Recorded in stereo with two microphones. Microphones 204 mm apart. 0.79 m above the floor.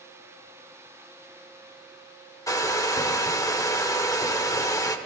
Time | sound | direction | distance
2.5 | a hair dryer | 15° left (ahead or behind) | 0.6 m